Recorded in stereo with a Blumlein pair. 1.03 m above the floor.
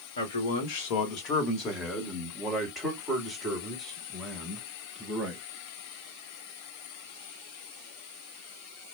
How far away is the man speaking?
About 1.0 m.